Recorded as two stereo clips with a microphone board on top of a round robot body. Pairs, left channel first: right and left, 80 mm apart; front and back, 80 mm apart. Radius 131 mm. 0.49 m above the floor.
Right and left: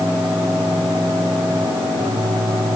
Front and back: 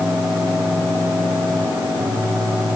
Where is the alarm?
No alarm in this recording.